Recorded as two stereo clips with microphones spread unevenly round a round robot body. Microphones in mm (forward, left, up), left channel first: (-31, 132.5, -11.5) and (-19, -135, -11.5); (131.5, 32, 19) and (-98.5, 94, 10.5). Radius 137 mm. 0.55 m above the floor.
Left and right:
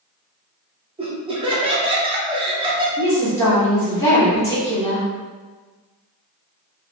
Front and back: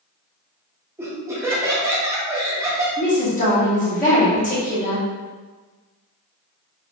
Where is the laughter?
135° right, 0.7 m.